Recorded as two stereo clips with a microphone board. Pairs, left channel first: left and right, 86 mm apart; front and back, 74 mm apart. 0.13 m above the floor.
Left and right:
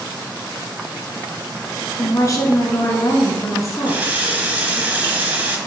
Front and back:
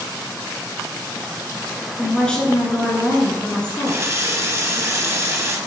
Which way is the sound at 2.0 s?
70° left.